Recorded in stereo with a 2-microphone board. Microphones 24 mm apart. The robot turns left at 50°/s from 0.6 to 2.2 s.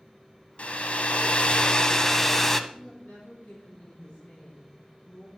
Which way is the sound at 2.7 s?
65° left (ahead or behind).